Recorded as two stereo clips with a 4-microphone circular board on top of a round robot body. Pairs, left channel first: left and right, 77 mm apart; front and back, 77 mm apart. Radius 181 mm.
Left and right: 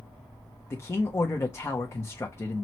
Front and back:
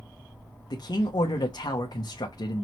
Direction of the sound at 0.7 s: 35° left.